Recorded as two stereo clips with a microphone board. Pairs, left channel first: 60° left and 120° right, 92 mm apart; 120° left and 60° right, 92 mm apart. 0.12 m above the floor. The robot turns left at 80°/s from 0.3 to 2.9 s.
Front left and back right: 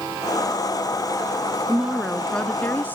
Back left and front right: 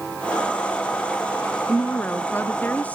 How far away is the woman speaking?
About 1.1 m.